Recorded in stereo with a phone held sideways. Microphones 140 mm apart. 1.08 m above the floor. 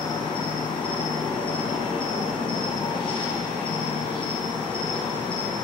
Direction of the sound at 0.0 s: 35° left (ahead or behind).